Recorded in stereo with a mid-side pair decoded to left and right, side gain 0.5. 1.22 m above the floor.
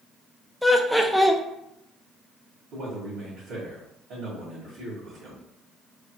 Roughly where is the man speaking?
Ahead right.